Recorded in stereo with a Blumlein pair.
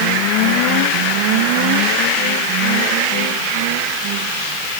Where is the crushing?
I don't hear crushing.